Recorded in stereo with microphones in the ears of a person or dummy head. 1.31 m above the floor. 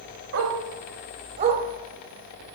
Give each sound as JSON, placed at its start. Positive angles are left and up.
{"t": 0.3, "sound": "a dog barking", "side_deg": -55, "distance_m": 1.6}